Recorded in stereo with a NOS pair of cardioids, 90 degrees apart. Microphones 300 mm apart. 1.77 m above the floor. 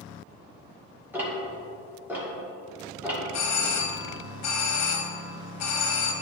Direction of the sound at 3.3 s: 65° left.